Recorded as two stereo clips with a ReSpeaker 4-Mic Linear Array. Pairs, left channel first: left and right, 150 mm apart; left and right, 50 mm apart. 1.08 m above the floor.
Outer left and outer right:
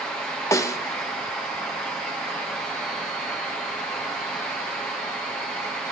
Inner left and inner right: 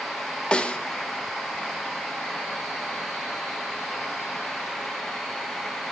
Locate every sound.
0.5 s a snare drum: 20° left (ahead or behind), 0.7 m